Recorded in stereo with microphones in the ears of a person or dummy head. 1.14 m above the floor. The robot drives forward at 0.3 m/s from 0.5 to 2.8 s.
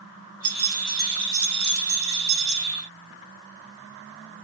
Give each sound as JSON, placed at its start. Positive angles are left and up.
{"t": 0.4, "sound": "keys jangling", "side_deg": -45, "distance_m": 2.0}